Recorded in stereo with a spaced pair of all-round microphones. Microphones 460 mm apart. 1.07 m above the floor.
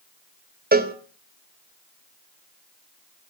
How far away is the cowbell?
About 0.5 m.